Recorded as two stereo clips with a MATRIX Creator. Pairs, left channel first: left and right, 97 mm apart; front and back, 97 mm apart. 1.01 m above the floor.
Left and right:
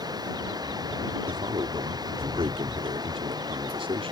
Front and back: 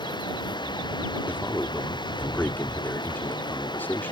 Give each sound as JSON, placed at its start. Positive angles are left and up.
{"t": 0.0, "sound": "running water", "azimuth_deg": -40}
{"t": 1.3, "sound": "a man speaking", "azimuth_deg": -70}